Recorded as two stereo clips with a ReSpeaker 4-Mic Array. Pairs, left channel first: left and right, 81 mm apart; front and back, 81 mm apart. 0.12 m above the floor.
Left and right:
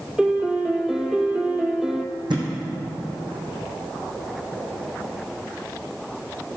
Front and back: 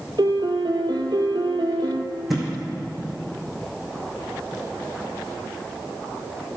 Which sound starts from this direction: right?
A thud, at 2.3 s.